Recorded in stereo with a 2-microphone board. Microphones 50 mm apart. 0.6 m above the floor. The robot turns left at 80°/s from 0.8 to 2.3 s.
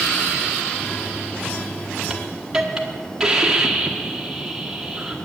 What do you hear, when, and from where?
2.1 s a hiss: 5° right (ahead or behind), 1.3 m; by 5.2 s 15° right (ahead or behind), 1.3 m